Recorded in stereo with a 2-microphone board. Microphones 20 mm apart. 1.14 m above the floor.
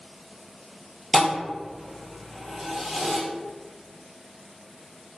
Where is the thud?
5° left (ahead or behind), 1.4 m.